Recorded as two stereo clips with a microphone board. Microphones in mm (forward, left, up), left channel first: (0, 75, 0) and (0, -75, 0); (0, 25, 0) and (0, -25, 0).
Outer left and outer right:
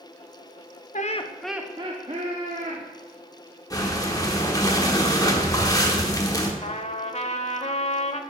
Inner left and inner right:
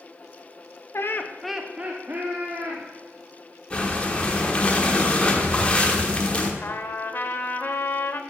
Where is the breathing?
25° left (ahead or behind), 1.1 m.